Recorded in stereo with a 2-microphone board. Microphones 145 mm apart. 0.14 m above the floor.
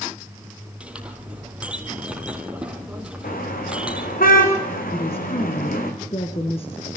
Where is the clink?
10° right (ahead or behind), 3.5 m.